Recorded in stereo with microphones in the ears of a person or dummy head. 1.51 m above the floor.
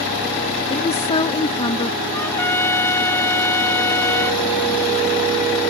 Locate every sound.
0.7 s a woman speaking: 35° left (ahead or behind); by 2.0 s 25° left (ahead or behind)
2.1 s a trumpet: 15° left (ahead or behind)